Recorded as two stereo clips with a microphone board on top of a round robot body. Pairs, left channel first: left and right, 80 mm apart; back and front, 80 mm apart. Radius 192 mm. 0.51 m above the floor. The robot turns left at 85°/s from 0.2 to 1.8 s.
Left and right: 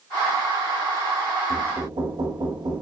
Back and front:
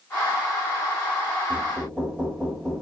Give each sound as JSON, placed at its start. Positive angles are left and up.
{"t": 1.5, "sound": "knocking", "azimuth_deg": -70, "distance_m": 2.0}